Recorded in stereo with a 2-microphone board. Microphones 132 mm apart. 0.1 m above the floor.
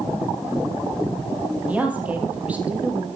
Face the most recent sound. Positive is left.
turn(degrees=-10)  # may be behind; listen again after turning